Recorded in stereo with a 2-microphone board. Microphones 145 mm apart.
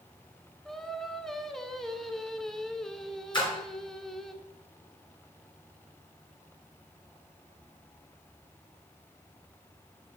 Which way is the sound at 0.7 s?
5° left (ahead or behind).